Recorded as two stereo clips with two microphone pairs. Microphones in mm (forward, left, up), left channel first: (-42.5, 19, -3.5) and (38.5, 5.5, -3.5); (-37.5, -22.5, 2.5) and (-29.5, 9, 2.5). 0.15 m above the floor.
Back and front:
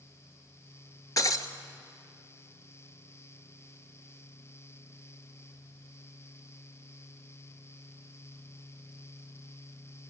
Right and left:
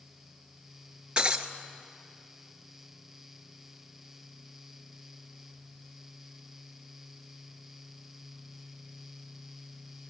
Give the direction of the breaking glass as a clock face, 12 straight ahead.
8 o'clock.